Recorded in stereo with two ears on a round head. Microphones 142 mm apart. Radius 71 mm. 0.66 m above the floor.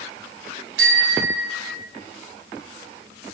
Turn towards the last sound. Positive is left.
turn(degrees=-85)